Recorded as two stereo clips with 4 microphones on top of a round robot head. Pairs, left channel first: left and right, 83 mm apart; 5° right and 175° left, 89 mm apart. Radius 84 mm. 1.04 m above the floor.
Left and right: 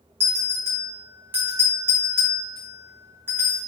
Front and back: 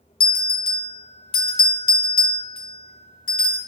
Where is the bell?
20° right, 0.8 m.